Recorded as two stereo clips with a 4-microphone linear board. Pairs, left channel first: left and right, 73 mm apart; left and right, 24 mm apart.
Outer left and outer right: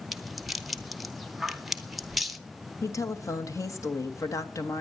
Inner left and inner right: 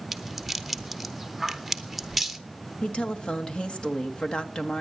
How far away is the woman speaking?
About 1.4 m.